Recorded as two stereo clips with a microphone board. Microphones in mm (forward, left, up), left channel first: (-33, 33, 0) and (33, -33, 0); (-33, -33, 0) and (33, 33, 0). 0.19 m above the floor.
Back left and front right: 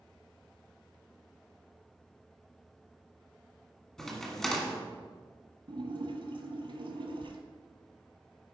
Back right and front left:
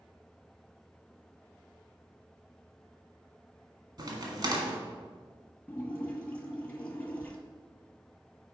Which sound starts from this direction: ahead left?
A crack, at 4.0 s.